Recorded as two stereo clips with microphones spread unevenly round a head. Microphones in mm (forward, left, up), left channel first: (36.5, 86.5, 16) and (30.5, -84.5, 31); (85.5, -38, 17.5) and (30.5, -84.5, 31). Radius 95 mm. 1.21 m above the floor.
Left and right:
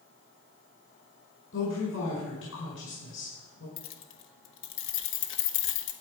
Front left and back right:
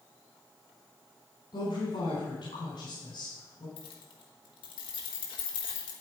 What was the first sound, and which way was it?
A woman speaking, 80° left.